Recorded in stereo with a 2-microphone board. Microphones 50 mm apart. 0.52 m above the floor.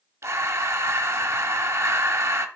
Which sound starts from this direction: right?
Breathing, at 0.2 s.